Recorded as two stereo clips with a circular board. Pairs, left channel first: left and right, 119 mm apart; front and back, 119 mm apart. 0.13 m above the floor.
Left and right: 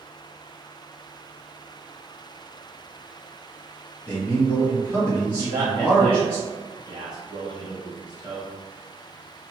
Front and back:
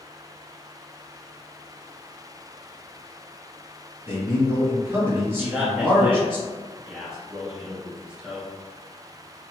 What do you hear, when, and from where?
4.1 s a man speaking: 145° left, 1.7 m
5.4 s a man speaking: 100° right, 1.3 m